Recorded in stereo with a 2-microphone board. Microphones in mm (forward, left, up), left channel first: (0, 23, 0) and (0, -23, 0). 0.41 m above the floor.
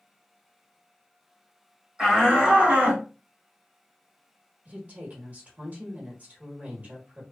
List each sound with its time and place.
2.0 s a shout: 15° right (ahead or behind), 1.4 m; by 3.0 s 40° right (ahead or behind), 1.7 m
4.7 s a woman speaking: 35° right (ahead or behind), 1.2 m